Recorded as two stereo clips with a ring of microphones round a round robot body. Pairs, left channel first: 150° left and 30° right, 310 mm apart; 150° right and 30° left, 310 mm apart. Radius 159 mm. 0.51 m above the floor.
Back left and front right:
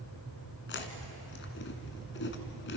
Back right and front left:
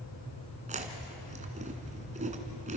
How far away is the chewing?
About 2.0 m.